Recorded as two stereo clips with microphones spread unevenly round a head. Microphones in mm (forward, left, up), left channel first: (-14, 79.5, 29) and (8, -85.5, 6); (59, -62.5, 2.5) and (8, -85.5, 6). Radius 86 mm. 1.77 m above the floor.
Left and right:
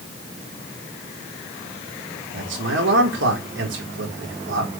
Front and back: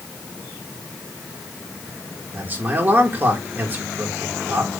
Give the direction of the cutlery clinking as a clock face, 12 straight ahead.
I don't hear cutlery clinking.